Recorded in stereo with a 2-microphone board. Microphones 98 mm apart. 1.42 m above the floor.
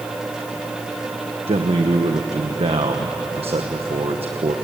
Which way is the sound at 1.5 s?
75° right (ahead or behind).